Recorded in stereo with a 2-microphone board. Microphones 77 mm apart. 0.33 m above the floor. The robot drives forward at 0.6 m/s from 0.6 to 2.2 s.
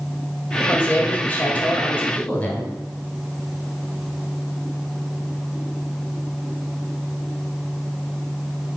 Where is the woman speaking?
20° left (ahead or behind), 1.6 m.